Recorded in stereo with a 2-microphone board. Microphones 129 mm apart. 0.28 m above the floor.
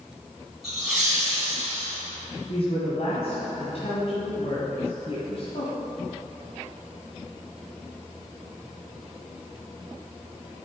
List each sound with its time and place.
0.6 s laughter: centre (ahead or behind), 3 m; by 2.0 s 10° left (ahead or behind), 2.5 m
2.5 s a woman speaking: 55° left (ahead or behind), 1.9 m